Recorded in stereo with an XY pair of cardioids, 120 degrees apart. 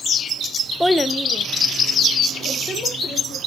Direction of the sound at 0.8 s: Straight ahead.